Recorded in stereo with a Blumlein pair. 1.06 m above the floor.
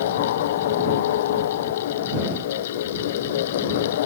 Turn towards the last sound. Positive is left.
turn(degrees=55)